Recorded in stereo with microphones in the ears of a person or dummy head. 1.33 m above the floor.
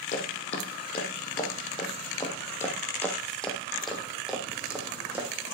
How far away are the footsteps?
About 2.5 m.